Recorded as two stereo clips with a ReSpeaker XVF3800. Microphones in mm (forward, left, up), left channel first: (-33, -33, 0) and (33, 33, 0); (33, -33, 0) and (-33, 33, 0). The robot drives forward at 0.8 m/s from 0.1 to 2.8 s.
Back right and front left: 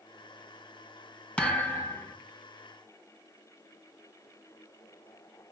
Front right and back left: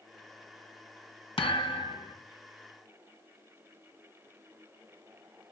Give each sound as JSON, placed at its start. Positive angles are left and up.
{"t": 1.4, "sound": "a thud", "azimuth_deg": -60, "distance_m": 1.8}